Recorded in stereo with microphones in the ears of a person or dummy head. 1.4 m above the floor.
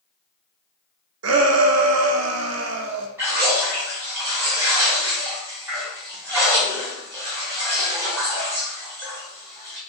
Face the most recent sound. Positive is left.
turn(degrees=-5)  # may be behind; listen again after turning